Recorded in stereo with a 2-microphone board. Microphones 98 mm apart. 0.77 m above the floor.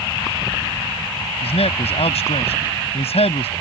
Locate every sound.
1.4 s a man speaking: 80° left